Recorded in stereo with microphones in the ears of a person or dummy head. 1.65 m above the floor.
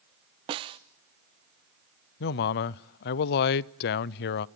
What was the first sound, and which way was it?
A snare drum, 25° right (ahead or behind).